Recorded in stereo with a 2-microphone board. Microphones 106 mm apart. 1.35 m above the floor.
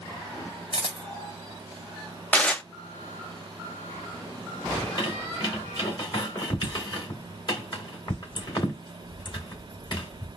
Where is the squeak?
45° left (ahead or behind), 2 m.